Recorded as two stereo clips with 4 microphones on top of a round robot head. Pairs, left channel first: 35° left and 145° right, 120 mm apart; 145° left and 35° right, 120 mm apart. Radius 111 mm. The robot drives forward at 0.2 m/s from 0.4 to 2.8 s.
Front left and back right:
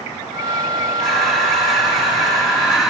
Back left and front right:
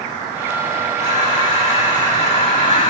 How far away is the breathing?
About 4 m.